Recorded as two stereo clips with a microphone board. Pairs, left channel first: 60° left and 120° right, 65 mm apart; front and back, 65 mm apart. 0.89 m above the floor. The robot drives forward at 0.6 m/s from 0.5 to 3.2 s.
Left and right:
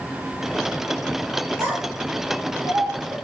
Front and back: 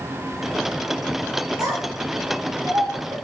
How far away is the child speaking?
About 7 m.